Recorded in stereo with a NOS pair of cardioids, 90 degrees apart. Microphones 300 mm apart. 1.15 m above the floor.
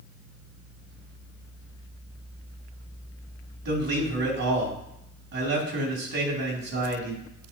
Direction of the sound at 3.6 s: 60° right.